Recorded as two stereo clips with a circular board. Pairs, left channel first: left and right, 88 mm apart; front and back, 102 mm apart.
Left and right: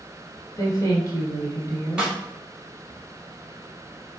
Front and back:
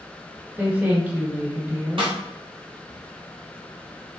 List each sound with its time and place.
0.6 s a woman speaking: 110° left, 1.3 m
2.0 s a snare drum: 165° right, 1.6 m